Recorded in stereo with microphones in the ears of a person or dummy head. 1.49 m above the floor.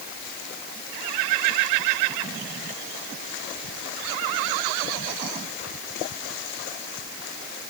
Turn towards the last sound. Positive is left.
No sound to turn to.